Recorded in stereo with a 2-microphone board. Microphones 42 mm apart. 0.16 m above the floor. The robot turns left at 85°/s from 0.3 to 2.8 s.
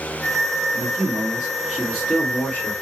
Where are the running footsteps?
I don't hear running footsteps.